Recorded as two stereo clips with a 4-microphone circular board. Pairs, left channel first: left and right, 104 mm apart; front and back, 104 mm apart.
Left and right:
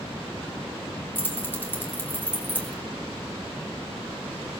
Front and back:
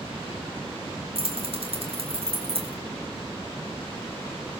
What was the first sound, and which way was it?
Keys jangling, 160° left.